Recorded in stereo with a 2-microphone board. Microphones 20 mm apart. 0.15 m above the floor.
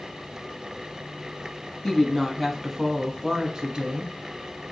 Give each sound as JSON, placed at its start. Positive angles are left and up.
{"t": 1.8, "sound": "a woman speaking", "side_deg": 25, "distance_m": 1.1}